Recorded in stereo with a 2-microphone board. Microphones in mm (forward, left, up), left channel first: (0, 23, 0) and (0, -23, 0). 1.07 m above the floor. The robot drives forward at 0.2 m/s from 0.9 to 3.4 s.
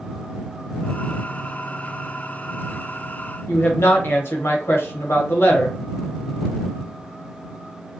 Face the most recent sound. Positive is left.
turn(degrees=60)  # may be behind; listen again after turning